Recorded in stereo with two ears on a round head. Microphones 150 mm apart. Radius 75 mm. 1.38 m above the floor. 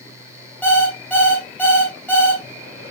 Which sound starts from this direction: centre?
An alarm clock, at 0.6 s.